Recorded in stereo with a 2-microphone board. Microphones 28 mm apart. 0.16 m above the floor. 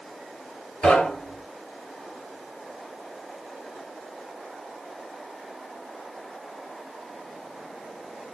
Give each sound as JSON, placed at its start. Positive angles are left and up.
{"t": 0.8, "sound": "knocking", "side_deg": 55, "distance_m": 2.5}